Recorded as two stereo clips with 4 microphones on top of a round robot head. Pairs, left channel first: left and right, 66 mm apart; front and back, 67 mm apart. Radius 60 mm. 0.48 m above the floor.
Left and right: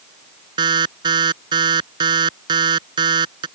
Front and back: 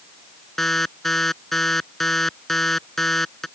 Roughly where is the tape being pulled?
No tape being pulled in this recording.